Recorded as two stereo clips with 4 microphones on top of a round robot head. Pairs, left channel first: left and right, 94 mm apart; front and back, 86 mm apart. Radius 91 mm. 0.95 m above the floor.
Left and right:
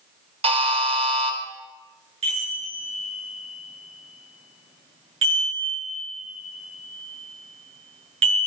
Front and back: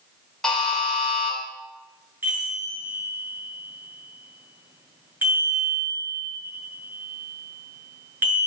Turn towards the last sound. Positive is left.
turn(degrees=-105)